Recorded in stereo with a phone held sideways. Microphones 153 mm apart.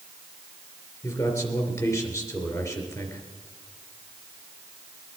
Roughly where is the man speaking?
Left.